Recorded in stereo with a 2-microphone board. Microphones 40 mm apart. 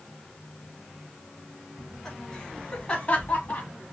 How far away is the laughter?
About 2.0 m.